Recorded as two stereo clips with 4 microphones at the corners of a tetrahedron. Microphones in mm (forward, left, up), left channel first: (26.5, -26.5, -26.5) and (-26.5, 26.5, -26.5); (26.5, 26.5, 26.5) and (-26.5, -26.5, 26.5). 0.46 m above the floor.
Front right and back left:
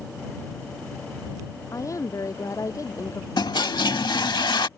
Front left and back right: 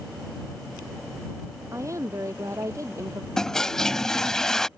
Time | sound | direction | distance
1.7 | a woman speaking | 85° right | ?
3.4 | a toilet flushing | 40° right | ?